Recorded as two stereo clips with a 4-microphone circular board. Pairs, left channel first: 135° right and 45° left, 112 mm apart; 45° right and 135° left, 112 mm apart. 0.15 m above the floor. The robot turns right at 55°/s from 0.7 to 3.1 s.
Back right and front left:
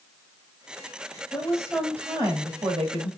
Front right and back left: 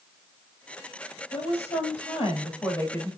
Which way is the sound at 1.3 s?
60° right.